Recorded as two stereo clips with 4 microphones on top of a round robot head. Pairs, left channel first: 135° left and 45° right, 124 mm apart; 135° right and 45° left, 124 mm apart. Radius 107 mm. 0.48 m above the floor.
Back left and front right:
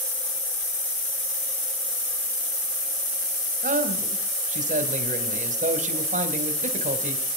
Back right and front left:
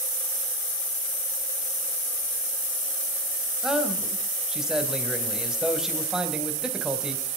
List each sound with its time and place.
3.6 s a man speaking: 40° right, 2.5 m